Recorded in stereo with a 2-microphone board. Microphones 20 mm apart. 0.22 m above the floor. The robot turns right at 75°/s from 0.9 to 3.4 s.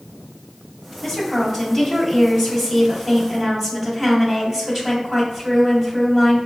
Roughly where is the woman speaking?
Left.